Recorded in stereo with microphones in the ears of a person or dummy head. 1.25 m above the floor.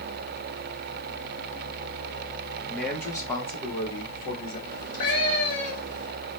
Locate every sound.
2.7 s a man speaking: 5° right (ahead or behind), 0.9 m; by 4.6 s 45° left (ahead or behind), 1.4 m
4.7 s a cat meowing: 45° left (ahead or behind), 1.5 m